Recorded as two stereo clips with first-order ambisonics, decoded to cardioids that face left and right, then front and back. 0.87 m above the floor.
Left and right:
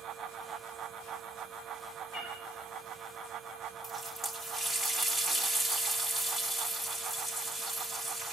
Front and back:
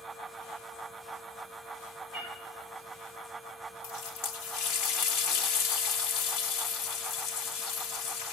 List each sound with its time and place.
2.1 s a cat meowing: 50° left, 6.5 m
3.8 s a running tap: 15° left, 1.2 m